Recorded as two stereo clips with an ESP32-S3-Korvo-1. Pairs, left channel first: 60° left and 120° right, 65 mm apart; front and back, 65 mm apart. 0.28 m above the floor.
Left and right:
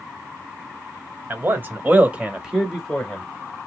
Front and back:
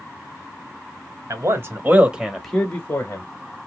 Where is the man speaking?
165° right, 1.2 m; by 3.2 s 25° right, 1.1 m.